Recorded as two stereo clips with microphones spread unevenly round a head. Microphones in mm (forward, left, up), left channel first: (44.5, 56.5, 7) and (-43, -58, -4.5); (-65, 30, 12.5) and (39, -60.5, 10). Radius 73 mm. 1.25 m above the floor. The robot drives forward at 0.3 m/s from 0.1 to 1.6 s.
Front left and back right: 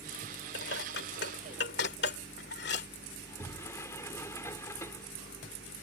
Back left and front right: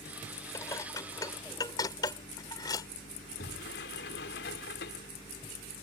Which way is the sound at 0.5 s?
65° left.